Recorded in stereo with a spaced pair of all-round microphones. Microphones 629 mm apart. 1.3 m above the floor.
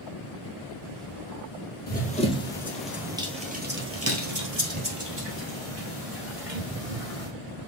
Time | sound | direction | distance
1.9 | running footsteps | 15° left (ahead or behind) | 1.9 m